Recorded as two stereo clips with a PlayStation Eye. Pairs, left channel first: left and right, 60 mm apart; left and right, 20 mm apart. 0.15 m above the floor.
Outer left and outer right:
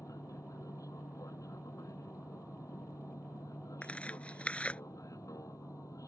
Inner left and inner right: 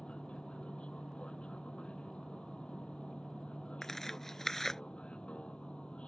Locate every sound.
0.0 s an aircraft: 70° left (ahead or behind)
3.8 s tearing paper: 20° left (ahead or behind)